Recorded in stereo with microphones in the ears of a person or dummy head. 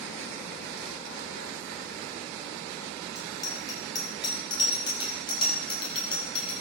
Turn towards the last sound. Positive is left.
turn(degrees=35)  # may be behind; listen again after turning